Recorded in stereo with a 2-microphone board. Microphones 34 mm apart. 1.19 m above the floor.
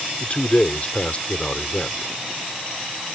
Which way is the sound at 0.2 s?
40° left (ahead or behind).